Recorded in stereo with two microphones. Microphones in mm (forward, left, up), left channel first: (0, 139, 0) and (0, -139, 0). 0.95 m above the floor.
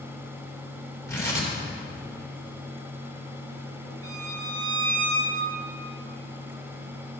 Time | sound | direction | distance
1.1 | tearing paper | 10° left (ahead or behind) | 2 m
4.0 | a violin | 10° left (ahead or behind) | 3 m